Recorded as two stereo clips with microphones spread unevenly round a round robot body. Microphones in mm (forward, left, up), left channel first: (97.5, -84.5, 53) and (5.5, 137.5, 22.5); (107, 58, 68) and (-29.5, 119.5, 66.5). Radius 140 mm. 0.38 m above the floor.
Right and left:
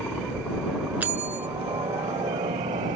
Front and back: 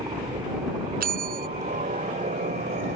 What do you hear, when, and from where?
0.0 s a helicopter: 155° right; by 3.0 s 175° left
1.0 s a bell: 165° right